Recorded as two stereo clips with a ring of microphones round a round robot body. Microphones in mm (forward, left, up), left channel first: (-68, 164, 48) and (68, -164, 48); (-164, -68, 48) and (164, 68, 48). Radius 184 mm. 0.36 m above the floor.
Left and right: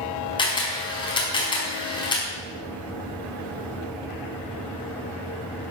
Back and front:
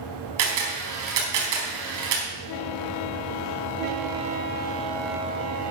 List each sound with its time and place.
0.4 s a camera shutter: 35° left, 4.5 m